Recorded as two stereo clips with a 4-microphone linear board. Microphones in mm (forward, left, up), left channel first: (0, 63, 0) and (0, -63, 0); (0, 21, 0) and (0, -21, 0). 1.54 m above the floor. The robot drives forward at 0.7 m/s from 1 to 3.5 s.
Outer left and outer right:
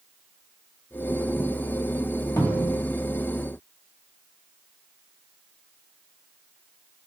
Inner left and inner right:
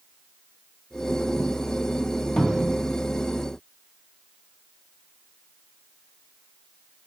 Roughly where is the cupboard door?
Left.